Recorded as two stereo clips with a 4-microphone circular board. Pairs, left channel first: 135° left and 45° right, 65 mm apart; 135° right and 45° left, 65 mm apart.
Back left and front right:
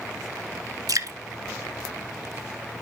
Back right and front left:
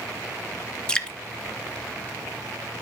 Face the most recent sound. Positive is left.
turn(degrees=-60)